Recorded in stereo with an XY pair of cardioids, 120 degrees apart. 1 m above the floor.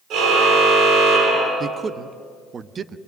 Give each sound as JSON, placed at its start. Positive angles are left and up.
{"t": 0.1, "sound": "a car horn", "azimuth_deg": -65, "distance_m": 9.0}
{"t": 1.6, "sound": "a man speaking", "azimuth_deg": -35, "distance_m": 0.9}